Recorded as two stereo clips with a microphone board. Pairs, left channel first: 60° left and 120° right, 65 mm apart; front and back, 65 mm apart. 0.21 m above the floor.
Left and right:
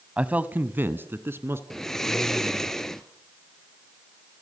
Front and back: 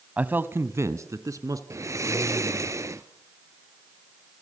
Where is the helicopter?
No helicopter in this recording.